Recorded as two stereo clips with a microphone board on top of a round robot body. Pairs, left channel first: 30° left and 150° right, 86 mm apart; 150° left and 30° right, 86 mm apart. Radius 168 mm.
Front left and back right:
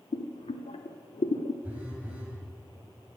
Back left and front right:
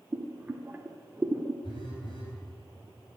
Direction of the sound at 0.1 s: 45° left.